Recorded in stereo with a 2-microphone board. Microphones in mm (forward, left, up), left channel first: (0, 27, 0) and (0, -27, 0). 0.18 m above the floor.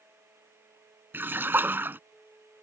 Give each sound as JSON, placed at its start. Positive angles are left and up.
{"t": 1.1, "sound": "a splash", "side_deg": -40}